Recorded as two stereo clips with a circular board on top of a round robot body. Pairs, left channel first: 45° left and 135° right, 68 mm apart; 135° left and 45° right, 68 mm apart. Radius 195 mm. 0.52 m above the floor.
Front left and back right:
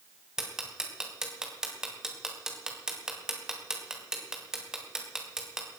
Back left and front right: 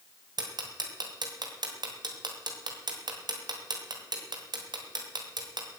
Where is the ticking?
55° right, 2.5 m.